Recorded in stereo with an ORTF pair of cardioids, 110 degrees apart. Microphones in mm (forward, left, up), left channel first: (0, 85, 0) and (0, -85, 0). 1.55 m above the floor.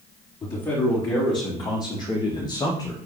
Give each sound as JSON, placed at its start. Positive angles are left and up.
{"t": 0.4, "sound": "a man speaking", "azimuth_deg": 25, "distance_m": 4.0}